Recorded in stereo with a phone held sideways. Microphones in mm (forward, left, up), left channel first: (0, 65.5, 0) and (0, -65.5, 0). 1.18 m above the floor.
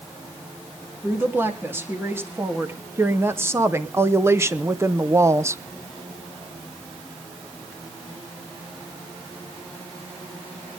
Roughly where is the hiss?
No hiss in this recording.